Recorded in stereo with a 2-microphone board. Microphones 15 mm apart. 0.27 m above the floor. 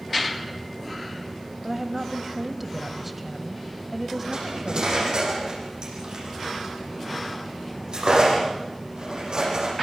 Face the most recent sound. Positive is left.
turn(degrees=-60)  # may be behind; listen again after turning